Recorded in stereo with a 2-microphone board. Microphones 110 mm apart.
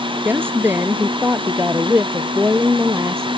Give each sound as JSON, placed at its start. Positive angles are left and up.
{"t": 0.2, "sound": "a woman speaking", "side_deg": -20}